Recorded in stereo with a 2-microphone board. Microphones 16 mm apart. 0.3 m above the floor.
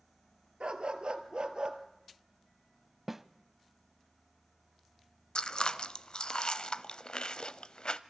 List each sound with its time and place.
0.6 s a dog barking: 75° right (ahead or behind), 1.5 m; by 1.8 s 50° right (ahead or behind), 1.7 m
3.1 s a snare drum: 15° right (ahead or behind), 0.5 m
5.3 s chewing: 55° left (ahead or behind), 0.5 m